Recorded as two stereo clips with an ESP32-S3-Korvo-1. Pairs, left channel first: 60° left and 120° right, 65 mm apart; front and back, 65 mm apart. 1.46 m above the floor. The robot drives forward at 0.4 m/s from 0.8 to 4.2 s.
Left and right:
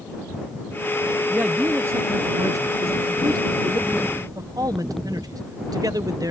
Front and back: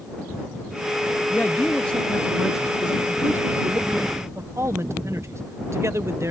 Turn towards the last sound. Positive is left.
turn(degrees=-135)